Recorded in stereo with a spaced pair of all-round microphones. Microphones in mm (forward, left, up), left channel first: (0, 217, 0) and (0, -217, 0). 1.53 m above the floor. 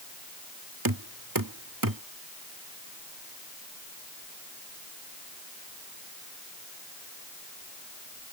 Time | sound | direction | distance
0.8 | knocking | 50° right (ahead or behind) | ?